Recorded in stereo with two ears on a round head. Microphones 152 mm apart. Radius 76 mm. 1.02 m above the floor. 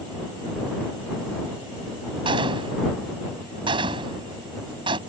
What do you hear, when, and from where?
2.2 s a gunshot: 30° right (ahead or behind)